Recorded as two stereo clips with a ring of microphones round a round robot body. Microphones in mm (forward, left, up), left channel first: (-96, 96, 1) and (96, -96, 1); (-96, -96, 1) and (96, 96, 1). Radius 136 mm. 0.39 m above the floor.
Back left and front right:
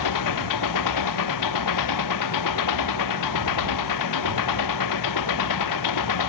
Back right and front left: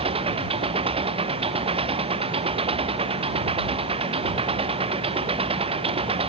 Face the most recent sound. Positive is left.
turn(degrees=115)